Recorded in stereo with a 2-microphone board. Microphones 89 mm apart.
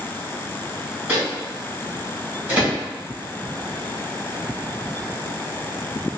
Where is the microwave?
20° right (ahead or behind), 1.2 m.